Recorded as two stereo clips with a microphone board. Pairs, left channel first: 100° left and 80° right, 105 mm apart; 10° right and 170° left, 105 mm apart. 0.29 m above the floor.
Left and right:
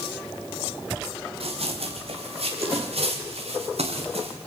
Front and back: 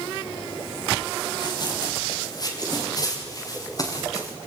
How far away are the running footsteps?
About 5.5 m.